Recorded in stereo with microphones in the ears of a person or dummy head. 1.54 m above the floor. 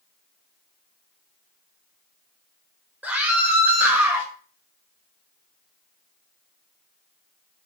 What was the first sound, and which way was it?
A scream, 10° right (ahead or behind).